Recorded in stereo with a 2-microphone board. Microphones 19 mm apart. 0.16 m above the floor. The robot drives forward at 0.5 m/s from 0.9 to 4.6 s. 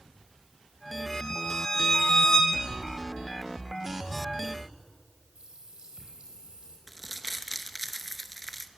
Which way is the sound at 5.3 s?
75° right (ahead or behind).